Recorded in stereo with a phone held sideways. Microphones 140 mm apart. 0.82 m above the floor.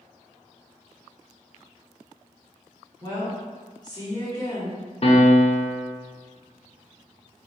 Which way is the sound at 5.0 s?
45° left (ahead or behind).